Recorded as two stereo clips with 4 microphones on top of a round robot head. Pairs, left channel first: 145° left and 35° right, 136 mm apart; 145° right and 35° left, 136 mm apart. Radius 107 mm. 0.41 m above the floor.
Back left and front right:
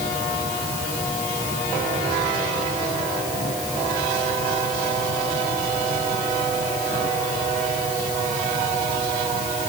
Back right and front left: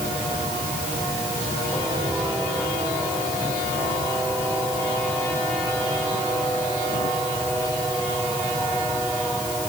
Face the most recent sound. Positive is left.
No sound to turn to.